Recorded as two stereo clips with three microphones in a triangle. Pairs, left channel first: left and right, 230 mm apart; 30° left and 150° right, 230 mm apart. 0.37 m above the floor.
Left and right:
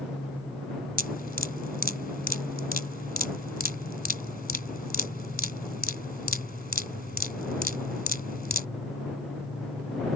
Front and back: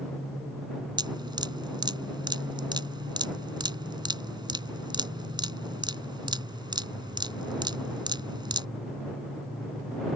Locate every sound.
1.0 s dripping: 140° left